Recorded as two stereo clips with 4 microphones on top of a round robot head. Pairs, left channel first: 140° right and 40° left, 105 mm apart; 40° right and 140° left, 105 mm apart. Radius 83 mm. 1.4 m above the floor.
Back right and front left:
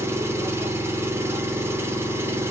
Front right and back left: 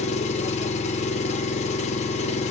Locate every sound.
0.0 s an engine running: 25° right, 0.8 m